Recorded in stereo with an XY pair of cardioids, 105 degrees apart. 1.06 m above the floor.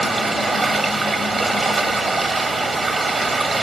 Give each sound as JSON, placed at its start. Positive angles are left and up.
{"t": 0.0, "sound": "running water", "azimuth_deg": -20, "distance_m": 1.1}